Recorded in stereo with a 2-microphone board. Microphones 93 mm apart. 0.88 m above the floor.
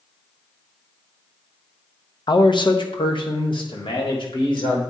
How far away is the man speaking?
About 0.6 m.